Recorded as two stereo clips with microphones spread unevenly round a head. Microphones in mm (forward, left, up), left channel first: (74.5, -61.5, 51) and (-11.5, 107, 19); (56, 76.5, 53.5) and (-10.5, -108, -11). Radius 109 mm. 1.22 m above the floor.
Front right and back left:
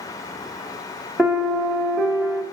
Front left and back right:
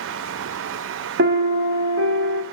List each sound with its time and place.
1.2 s a piano: 145° right, 0.6 m